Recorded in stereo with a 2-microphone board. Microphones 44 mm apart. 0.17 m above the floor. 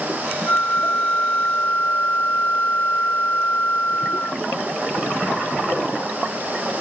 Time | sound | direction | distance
0.5 | a flute | 45° left (ahead or behind) | ?